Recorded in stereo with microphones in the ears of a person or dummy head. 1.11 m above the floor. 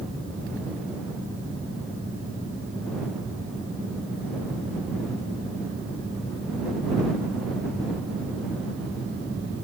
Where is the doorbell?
I don't hear a doorbell.